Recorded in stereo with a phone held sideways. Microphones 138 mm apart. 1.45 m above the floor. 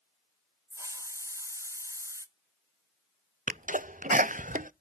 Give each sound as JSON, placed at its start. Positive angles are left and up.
{"t": 0.7, "sound": "a hiss", "side_deg": -20, "distance_m": 0.8}
{"t": 3.5, "sound": "a sneeze", "side_deg": -70, "distance_m": 0.5}